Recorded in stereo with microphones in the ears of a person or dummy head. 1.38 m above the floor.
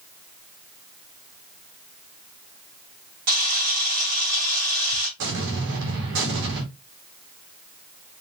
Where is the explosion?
70° right (ahead or behind), 2 m.